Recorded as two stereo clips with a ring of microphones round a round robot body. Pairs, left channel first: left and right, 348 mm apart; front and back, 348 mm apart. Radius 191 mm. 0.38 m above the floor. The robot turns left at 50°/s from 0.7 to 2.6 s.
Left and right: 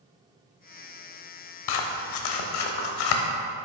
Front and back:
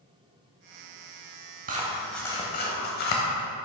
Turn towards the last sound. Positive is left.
turn(degrees=65)